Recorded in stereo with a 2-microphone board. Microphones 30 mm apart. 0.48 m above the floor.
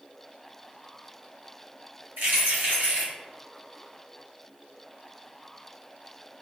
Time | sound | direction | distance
2.2 | keys jangling | 80° right | 1.8 m